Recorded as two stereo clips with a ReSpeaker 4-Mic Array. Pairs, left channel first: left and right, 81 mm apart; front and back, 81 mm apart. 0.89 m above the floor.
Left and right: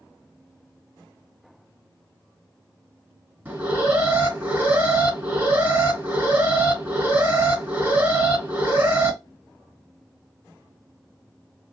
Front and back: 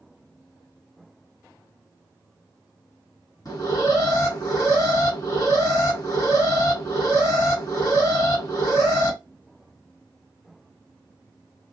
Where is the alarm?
25° right, 2 m.